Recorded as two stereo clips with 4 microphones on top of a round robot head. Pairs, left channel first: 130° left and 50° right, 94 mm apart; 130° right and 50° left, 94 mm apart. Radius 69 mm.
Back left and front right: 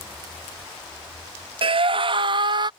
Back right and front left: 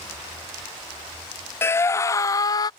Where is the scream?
70° right; by 2.7 s 85° right.